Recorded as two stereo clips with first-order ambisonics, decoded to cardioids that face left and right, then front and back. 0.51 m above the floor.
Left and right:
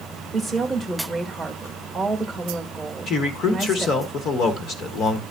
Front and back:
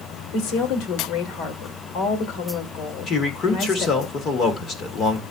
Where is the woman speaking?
10° left, 1.6 m.